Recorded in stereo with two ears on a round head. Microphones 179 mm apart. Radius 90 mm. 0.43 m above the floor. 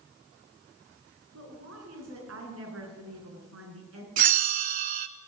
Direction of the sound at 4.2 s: 45° right (ahead or behind).